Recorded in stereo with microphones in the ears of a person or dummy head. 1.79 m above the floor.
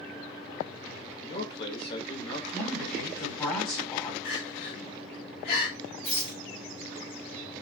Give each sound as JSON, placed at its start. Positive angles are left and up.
{"t": 1.2, "sound": "a man speaking", "side_deg": 30, "distance_m": 1.0}
{"t": 2.5, "sound": "a woman speaking", "side_deg": 5, "distance_m": 1.4}
{"t": 4.2, "sound": "crying", "side_deg": 50, "distance_m": 1.7}
{"t": 6.0, "sound": "a rattle", "side_deg": 35, "distance_m": 1.3}